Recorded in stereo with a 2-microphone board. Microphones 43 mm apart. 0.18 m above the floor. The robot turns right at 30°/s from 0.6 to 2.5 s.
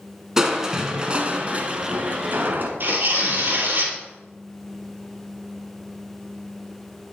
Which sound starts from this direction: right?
Tearing paper, at 2.8 s.